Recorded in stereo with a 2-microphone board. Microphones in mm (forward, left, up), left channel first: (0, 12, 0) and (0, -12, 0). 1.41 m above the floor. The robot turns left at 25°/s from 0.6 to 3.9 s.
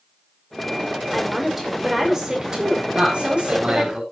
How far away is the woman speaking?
About 6 m.